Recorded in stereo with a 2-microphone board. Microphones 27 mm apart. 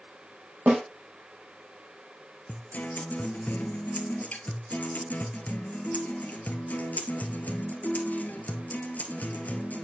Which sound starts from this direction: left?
A guitar, at 2.5 s.